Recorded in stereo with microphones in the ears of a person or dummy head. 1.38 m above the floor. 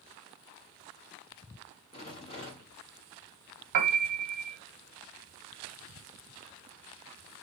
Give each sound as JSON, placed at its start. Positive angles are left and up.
{"t": 1.9, "sound": "a rattle", "side_deg": 40, "distance_m": 1.5}
{"t": 3.7, "sound": "a piano", "side_deg": -50, "distance_m": 0.9}